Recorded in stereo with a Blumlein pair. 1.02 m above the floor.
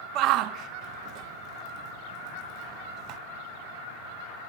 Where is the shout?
40° right, 0.5 m.